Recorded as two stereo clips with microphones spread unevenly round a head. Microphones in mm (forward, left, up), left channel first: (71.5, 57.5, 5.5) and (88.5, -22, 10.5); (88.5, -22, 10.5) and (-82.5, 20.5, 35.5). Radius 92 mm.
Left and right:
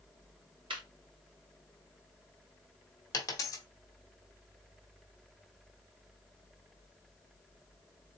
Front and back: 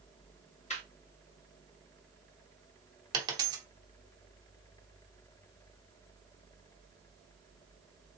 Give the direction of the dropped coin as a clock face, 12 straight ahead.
8 o'clock.